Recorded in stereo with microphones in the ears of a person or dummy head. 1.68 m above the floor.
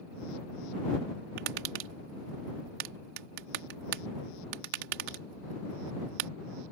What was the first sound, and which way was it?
Tapping, 55° right (ahead or behind).